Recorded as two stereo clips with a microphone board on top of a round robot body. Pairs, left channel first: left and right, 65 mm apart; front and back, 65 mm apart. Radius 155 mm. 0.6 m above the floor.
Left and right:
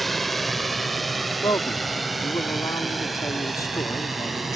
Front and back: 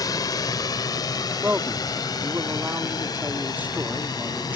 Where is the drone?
Straight ahead.